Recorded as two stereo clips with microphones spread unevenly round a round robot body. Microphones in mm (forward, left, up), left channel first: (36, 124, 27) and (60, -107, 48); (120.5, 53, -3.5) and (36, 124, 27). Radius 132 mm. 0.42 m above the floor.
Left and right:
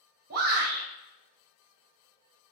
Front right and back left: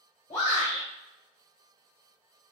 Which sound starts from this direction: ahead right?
A shout, at 0.3 s.